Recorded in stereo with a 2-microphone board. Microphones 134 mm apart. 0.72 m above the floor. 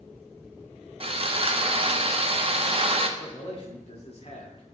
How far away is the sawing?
About 0.7 m.